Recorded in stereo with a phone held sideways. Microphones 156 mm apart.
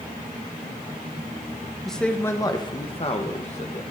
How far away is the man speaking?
About 0.9 m.